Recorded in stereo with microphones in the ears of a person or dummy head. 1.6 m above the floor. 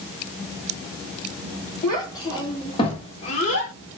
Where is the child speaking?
20° left (ahead or behind), 2 m; by 3.7 s 45° left (ahead or behind), 0.9 m.